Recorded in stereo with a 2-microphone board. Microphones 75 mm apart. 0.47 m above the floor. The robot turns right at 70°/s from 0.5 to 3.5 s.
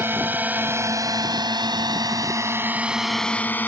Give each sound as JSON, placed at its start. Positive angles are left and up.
{"t": 0.0, "sound": "a drone", "side_deg": -30}